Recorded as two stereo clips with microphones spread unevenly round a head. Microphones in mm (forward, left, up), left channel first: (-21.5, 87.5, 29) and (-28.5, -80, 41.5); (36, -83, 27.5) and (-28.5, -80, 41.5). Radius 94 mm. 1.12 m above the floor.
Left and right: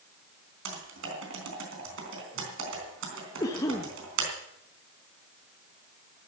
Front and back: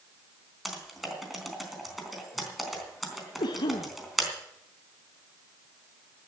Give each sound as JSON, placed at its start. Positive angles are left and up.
{"t": 0.7, "sound": "typing on a keyboard", "azimuth_deg": -95, "distance_m": 3.5}
{"t": 3.4, "sound": "a cough", "azimuth_deg": 15, "distance_m": 1.0}